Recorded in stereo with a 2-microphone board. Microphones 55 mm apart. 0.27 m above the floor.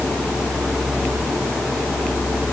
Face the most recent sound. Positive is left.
No sound to turn to.